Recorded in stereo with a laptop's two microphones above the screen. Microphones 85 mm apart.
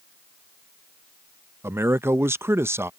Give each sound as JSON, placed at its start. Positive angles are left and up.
{"t": 1.6, "sound": "a man speaking", "side_deg": -30}